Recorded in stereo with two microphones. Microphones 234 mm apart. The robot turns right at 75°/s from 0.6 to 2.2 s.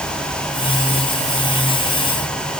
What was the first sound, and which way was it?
Only background noise.